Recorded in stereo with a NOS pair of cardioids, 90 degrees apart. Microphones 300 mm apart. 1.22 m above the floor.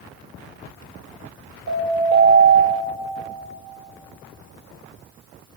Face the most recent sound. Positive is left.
turn(degrees=-60)